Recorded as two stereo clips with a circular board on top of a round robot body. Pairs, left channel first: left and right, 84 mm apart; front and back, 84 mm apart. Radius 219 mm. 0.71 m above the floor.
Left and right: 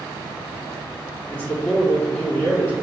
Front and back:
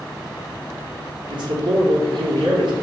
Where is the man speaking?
160° left, 2.5 m.